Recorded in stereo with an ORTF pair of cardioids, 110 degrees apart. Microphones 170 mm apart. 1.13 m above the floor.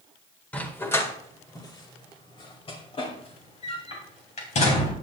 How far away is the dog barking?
About 1.7 m.